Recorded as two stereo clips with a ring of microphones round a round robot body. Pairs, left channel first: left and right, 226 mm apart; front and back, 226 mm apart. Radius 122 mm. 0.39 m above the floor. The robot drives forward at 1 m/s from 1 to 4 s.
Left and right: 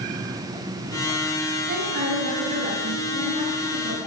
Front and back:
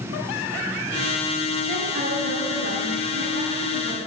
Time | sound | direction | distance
1.7 | a woman speaking | 130° right | 2.5 m